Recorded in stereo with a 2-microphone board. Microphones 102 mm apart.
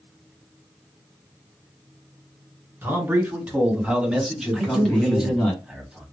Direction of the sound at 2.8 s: 20° right (ahead or behind).